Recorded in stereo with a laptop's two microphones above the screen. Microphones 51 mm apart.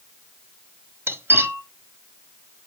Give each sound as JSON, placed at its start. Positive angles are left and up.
{"t": 1.1, "sound": "cutlery clinking", "side_deg": -50, "distance_m": 1.1}